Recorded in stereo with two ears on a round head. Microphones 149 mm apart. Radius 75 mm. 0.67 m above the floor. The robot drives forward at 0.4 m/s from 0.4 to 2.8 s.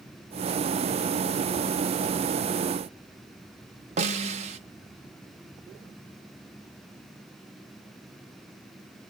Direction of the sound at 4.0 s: 40° right (ahead or behind).